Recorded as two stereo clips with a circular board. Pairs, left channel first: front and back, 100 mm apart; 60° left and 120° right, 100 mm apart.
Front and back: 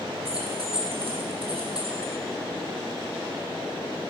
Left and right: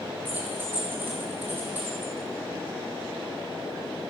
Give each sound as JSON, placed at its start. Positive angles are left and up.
{"t": 0.2, "sound": "keys jangling", "azimuth_deg": 170, "distance_m": 2.5}